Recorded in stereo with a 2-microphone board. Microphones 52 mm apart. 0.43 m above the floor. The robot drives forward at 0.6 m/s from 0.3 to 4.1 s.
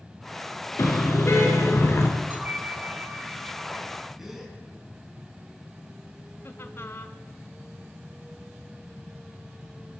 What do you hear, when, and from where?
0.8 s a car horn: 55° left (ahead or behind), 4 m; by 2.1 s 50° left (ahead or behind), 4.5 m
2.3 s a bell: 30° right (ahead or behind), 1.2 m; by 4.1 s 15° right (ahead or behind), 2 m
4.2 s a gasp: 5° right (ahead or behind), 3.5 m
6.4 s laughter: 50° left (ahead or behind), 1.6 m